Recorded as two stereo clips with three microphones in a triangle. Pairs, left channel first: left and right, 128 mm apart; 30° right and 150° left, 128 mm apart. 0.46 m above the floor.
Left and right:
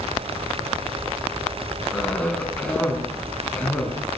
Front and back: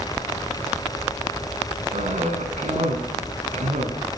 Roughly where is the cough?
Behind.